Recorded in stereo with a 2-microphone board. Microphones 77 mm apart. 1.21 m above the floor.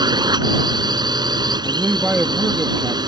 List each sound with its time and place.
0.0 s a drone: 85° right
1.6 s a man speaking: 20° right (ahead or behind)